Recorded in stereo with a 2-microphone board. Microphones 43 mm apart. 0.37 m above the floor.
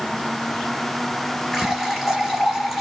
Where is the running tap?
5° right (ahead or behind), 4 m.